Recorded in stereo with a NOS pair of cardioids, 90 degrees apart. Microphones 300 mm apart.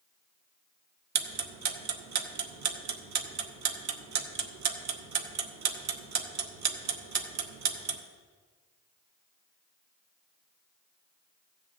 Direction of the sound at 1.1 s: 65° right.